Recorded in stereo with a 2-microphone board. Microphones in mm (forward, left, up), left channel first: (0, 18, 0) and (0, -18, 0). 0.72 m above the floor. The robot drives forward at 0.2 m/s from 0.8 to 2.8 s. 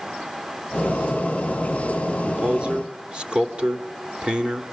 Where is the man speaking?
25° right (ahead or behind), 1.9 m.